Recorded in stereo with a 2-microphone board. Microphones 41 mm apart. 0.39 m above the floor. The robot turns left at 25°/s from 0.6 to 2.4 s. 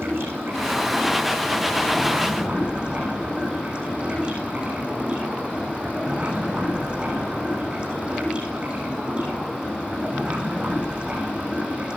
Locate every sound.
0.0 s running water: 110° right, 9 m; by 12.0 s 155° right, 9 m